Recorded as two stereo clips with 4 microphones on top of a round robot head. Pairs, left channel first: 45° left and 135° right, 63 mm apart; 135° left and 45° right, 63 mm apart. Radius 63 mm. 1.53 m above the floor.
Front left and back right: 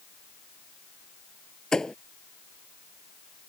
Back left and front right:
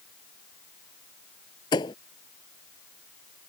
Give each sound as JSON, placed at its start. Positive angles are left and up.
{"t": 1.7, "sound": "a thud", "azimuth_deg": 130}